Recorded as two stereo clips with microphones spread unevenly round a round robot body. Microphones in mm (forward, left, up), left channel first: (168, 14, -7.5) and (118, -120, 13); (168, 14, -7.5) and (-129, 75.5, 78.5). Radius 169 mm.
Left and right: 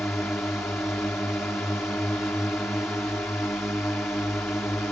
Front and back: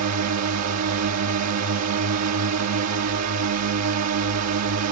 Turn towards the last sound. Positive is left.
turn(degrees=150)